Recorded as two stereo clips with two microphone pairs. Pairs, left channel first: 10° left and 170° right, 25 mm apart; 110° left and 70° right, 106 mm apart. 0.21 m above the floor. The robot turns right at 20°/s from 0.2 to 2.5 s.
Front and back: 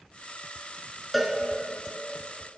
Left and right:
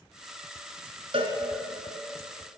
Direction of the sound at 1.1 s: 85° right.